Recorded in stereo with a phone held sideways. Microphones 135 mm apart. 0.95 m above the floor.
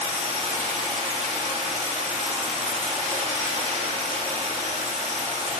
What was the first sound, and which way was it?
Running water, 55° right (ahead or behind).